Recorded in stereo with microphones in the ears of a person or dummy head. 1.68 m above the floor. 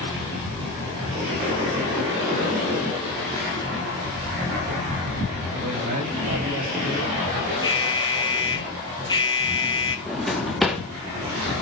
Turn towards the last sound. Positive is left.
turn(degrees=0)  # may be behind; listen again after turning